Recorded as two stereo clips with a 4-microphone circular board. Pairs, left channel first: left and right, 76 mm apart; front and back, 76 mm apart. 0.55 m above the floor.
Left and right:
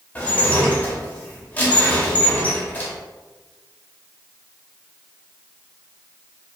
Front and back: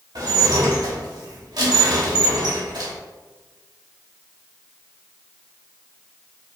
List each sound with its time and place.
0.1 s dishes clattering: 155° left, 1.1 m